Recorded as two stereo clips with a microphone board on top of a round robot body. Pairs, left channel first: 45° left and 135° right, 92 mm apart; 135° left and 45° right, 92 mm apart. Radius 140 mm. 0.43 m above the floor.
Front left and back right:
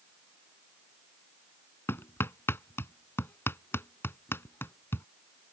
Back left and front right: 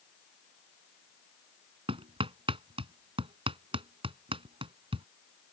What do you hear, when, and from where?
1.9 s hammering: 20° right